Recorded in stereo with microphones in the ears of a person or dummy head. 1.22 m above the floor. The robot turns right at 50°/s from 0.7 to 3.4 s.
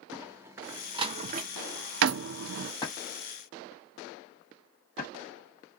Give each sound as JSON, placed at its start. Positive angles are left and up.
{"t": 0.1, "sound": "a door slam", "side_deg": -5, "distance_m": 0.6}
{"t": 2.8, "sound": "a drawer", "side_deg": 15, "distance_m": 1.2}